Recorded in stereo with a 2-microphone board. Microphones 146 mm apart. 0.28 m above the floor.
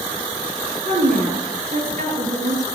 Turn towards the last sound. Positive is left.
turn(degrees=-55)  # may be behind; listen again after turning